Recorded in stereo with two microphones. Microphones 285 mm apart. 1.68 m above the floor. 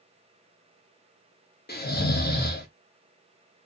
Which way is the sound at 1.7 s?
35° left (ahead or behind).